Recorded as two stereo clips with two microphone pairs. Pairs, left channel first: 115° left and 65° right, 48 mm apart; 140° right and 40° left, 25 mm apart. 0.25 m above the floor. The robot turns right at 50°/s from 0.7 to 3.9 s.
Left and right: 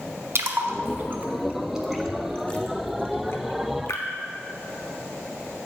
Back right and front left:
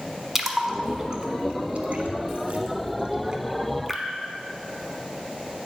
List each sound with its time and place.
0.3 s a splash: 40° right, 1.0 m; by 4.0 s 120° left, 1.0 m